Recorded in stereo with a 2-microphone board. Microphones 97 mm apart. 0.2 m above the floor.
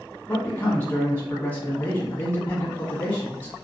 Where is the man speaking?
20° left (ahead or behind), 1.3 m.